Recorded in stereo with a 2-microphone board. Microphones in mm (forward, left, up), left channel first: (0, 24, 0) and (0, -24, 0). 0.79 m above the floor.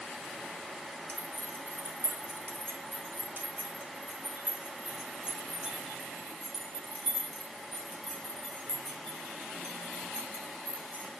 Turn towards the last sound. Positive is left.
turn(degrees=25)  # may be behind; listen again after turning